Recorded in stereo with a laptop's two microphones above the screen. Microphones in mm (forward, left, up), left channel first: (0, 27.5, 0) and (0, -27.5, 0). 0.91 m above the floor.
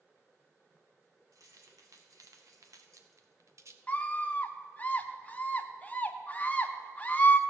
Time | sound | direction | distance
1.3 | keys jangling | 80° right | 1.8 m
3.9 | a scream | 25° left (ahead or behind) | 0.8 m